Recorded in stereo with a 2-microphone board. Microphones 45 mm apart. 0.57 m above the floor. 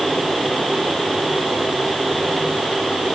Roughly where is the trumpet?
I don't hear a trumpet.